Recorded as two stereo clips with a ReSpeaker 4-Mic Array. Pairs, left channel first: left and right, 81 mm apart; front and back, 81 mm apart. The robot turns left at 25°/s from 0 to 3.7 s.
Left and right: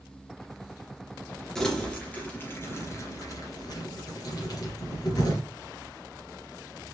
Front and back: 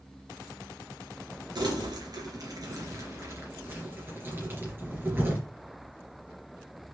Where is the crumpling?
175° left, 2.5 m; by 5.4 s 120° left, 2.5 m.